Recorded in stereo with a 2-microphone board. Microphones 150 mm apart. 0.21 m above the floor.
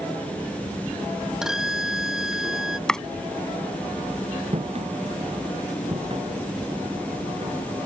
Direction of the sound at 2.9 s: 5° left (ahead or behind).